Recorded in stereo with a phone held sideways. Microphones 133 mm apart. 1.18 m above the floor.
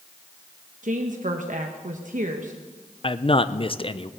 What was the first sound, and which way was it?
A woman speaking, 75° right (ahead or behind).